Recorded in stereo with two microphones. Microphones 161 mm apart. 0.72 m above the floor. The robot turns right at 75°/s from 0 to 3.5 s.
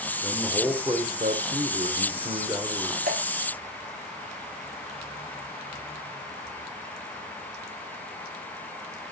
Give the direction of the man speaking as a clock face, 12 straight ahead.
7 o'clock.